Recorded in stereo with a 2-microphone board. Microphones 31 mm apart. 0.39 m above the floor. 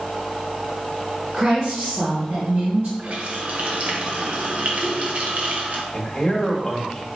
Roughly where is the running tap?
Right.